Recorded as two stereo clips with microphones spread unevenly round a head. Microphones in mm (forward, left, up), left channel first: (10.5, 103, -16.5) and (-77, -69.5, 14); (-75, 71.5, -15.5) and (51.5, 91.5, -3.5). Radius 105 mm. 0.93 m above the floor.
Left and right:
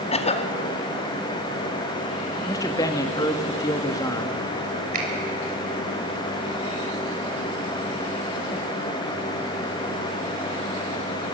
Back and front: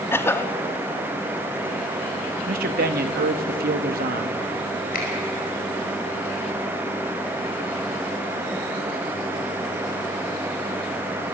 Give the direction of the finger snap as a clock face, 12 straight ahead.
5 o'clock.